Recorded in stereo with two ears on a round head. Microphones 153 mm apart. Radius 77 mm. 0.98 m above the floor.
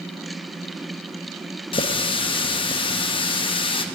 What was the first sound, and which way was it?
A running tap, 30° left (ahead or behind).